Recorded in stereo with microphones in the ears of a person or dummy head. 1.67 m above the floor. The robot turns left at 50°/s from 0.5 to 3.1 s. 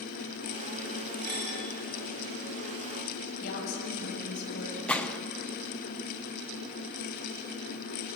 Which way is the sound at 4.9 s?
10° left (ahead or behind).